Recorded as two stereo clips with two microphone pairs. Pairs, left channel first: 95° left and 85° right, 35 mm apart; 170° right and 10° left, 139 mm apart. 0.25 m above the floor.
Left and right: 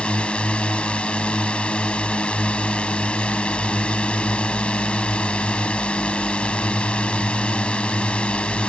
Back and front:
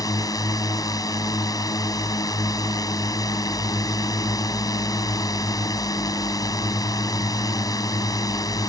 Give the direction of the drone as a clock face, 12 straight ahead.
7 o'clock.